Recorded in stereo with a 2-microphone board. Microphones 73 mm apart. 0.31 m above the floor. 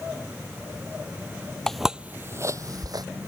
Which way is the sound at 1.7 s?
5° left (ahead or behind).